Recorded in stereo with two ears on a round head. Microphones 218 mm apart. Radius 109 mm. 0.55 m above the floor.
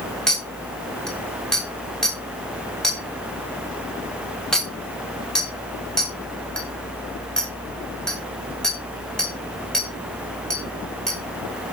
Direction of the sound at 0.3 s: 5° left (ahead or behind).